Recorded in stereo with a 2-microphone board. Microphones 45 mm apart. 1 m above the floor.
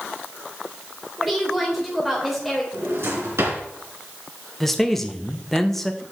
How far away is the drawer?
About 3 m.